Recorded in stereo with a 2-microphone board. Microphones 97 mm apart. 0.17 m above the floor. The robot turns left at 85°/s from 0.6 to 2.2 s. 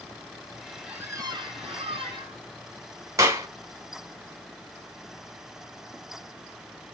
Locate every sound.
0.9 s a squeak: 10° right, 0.6 m; by 2.4 s 125° right, 0.6 m
3.2 s a clap: 30° right (ahead or behind), 0.9 m